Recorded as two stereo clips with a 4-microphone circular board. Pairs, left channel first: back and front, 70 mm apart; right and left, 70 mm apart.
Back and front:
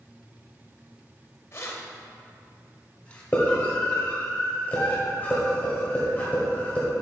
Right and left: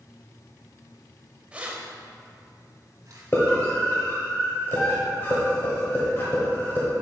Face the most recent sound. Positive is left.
turn(degrees=-125)